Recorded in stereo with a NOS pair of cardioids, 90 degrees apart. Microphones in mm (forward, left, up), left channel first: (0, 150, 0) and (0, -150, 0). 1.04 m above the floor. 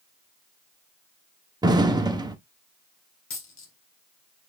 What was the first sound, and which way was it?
An explosion, 15° right.